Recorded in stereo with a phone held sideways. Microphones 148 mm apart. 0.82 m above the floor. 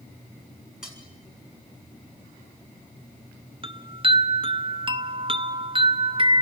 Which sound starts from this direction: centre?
Cutlery clinking, at 0.8 s.